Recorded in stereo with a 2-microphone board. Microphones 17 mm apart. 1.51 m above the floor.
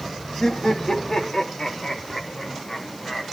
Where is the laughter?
40° left (ahead or behind), 3 m; by 3.2 s 30° left (ahead or behind), 5 m.